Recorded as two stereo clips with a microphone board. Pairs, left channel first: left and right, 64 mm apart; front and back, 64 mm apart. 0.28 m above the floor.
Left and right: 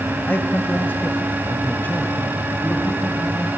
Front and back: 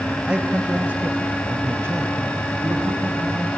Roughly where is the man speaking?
Behind left.